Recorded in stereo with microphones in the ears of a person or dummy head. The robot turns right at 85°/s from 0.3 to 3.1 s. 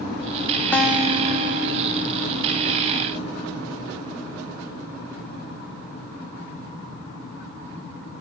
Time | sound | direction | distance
0.7 | a guitar | 170° left | 0.7 m